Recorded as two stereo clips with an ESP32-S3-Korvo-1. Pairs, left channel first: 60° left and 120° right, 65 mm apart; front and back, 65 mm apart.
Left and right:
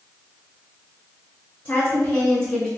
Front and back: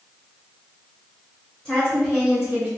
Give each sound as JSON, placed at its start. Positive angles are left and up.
{"t": 1.6, "sound": "a woman speaking", "azimuth_deg": 70, "distance_m": 1.5}